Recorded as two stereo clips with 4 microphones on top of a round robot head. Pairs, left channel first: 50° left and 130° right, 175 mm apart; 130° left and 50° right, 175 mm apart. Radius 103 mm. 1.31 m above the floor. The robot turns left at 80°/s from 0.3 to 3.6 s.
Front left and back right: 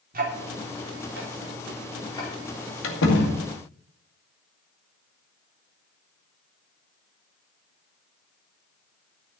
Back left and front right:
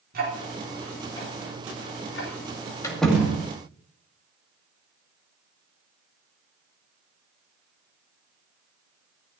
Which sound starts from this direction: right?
Ticking, at 0.1 s.